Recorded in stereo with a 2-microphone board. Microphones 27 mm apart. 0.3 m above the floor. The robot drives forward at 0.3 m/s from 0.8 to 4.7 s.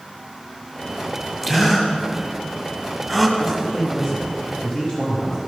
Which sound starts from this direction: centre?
A gasp, at 1.4 s.